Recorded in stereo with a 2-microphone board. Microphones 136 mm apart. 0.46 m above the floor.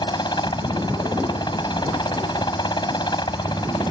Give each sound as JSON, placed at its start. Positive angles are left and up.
{"t": 0.0, "sound": "a helicopter", "side_deg": 30}